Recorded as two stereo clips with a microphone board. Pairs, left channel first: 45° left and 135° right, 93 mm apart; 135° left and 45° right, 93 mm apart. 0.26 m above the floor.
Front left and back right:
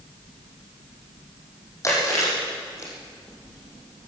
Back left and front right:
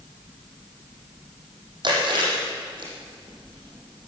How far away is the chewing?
About 8 m.